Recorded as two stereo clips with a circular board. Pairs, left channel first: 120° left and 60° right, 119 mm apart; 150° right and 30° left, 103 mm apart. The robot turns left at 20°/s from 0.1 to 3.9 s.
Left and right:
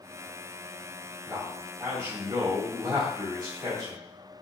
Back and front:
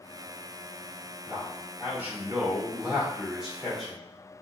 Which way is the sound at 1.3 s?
5° right.